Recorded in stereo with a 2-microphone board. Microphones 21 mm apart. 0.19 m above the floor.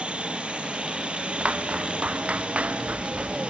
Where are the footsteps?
90° right; by 3.4 s 85° right.